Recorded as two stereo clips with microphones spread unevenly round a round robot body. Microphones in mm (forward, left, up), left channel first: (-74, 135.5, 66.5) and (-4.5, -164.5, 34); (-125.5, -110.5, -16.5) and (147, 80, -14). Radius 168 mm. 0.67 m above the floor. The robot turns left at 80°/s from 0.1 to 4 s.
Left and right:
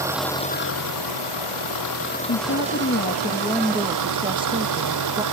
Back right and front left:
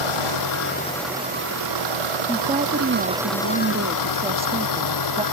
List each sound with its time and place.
0.0 s an engine running: 160° right; by 5.3 s 110° right
2.3 s a woman speaking: 115° left; by 5.2 s 25° right